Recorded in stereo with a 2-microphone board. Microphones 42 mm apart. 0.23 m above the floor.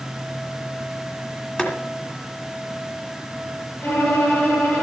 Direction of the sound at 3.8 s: 35° left (ahead or behind).